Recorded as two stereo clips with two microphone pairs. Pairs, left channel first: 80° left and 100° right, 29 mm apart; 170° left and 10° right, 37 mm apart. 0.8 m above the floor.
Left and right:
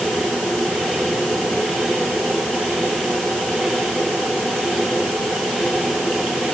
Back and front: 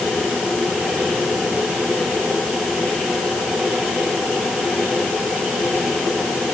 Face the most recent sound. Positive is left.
No sound to turn to.